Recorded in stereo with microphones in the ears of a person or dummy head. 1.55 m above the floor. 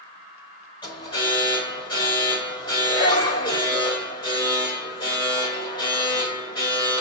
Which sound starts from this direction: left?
An alarm, at 0.8 s.